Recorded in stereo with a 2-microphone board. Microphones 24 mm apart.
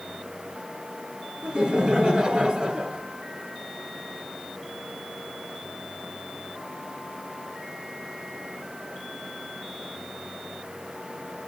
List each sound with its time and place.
1.4 s laughter: 30° right (ahead or behind), 1.6 m